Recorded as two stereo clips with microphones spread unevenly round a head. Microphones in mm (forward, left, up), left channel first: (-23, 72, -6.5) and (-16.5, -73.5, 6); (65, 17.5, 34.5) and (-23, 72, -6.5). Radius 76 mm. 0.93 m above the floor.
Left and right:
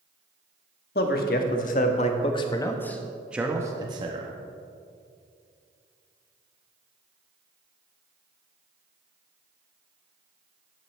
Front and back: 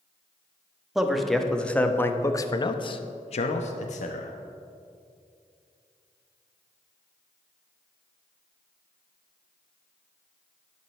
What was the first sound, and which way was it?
A man speaking, 65° left.